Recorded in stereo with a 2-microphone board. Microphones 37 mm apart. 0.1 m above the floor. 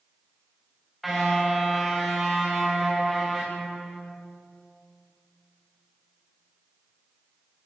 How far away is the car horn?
About 5 m.